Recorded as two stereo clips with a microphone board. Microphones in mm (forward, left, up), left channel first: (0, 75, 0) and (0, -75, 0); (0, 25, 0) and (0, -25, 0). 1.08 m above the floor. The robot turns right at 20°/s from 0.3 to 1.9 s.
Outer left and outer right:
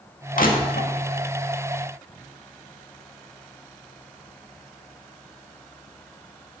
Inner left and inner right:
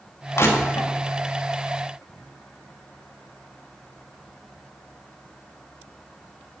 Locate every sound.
0.4 s crushing: 65° left (ahead or behind), 2 m; by 0.9 s 75° left (ahead or behind), 2 m